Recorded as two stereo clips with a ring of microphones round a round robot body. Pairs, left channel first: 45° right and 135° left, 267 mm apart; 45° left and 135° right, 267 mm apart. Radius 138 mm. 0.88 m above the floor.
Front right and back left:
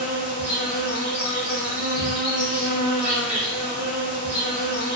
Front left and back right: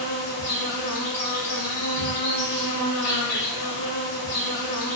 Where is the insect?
50° left, 0.8 m.